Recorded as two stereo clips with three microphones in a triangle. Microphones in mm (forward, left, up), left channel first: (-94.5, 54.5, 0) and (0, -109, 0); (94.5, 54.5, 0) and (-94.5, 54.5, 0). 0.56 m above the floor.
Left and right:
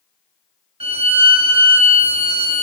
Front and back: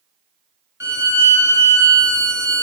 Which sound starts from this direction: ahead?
A violin, at 0.8 s.